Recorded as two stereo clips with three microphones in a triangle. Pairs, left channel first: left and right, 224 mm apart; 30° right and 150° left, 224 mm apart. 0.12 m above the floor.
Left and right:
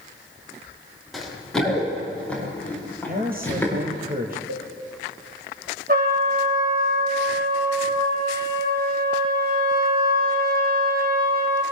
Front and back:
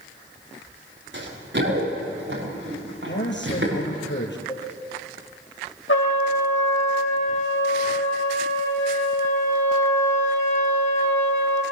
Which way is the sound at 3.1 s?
50° right.